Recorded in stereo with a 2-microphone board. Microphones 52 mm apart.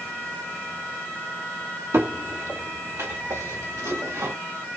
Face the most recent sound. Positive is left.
turn(degrees=-70)  # may be behind; listen again after turning